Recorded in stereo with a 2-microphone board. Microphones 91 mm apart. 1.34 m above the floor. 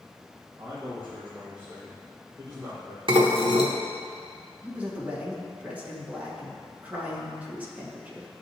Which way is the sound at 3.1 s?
70° right (ahead or behind).